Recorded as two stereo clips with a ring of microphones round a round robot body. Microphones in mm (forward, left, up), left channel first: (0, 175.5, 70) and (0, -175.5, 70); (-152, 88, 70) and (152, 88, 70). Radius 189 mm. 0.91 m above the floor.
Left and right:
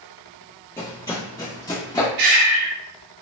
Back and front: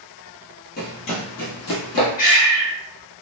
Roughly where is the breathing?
Behind right.